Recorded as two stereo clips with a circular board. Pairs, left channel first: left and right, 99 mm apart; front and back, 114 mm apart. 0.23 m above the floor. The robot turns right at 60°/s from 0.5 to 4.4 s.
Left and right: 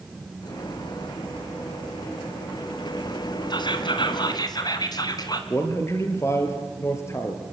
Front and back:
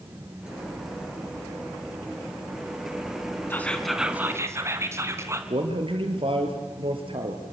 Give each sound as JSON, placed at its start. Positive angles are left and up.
{"t": 3.5, "sound": "whispering", "azimuth_deg": 65, "distance_m": 3.0}
{"t": 5.5, "sound": "a man speaking", "azimuth_deg": 150, "distance_m": 4.0}